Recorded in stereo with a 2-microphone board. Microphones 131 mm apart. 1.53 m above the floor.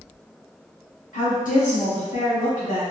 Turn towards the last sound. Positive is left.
turn(degrees=85)